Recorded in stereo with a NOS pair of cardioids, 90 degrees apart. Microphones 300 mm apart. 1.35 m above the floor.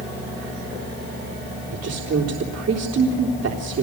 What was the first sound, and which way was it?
A woman speaking, 55° right.